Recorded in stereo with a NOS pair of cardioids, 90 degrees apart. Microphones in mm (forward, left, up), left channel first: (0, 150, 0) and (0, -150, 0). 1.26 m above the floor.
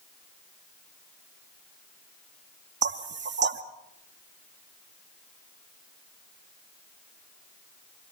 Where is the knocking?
35° right, 1.7 m.